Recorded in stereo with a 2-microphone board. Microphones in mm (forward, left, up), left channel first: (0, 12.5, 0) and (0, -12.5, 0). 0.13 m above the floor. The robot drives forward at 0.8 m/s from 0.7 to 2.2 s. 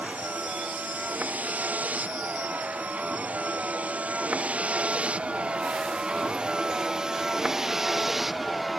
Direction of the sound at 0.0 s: 90° right.